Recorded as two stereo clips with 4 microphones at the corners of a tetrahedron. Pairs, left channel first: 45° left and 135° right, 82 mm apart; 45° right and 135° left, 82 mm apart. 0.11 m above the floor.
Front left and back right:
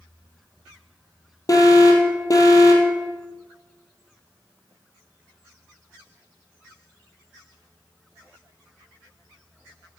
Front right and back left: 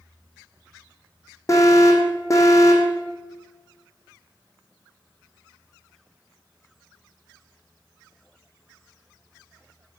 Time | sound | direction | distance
1.5 | an alarm | 5° left | 2.5 m